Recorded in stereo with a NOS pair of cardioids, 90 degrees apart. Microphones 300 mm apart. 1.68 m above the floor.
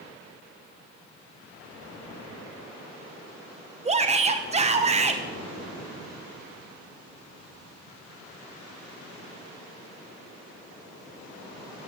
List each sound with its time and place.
3.9 s a shout: 20° right, 0.7 m